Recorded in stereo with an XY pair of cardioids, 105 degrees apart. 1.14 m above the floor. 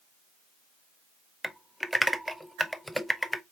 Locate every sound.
1.4 s typing on a keyboard: straight ahead, 0.5 m